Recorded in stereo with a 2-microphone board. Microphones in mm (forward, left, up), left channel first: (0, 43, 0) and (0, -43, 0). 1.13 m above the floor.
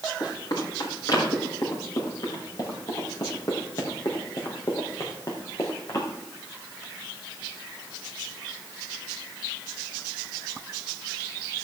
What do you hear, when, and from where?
0.2 s running footsteps: 50° left (ahead or behind), 6 m; by 6.1 s 40° left (ahead or behind), 3.5 m